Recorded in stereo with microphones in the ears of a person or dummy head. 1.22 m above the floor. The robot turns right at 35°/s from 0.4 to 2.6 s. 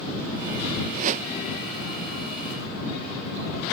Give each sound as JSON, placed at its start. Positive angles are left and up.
{"t": 0.9, "sound": "a whoosh", "side_deg": -45}